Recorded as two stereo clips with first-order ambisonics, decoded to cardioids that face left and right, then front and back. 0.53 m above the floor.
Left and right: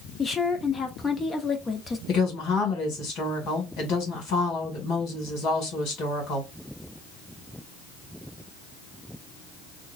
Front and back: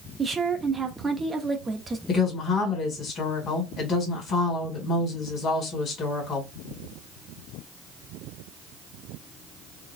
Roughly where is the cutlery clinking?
I don't hear cutlery clinking.